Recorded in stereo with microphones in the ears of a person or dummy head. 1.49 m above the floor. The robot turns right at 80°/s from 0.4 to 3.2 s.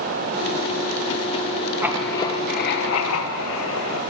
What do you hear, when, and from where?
1.8 s writing: 15° right, 1.2 m; by 4.0 s 100° left, 1.2 m